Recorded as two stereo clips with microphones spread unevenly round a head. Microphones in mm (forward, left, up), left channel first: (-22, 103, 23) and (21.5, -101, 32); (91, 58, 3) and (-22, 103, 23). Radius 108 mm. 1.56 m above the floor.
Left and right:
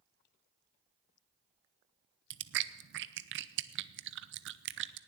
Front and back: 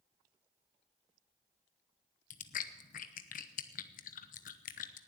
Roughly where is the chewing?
Ahead right.